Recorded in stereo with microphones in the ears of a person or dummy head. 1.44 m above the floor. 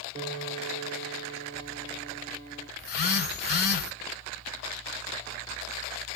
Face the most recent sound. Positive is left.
turn(degrees=50)  # may be behind; listen again after turning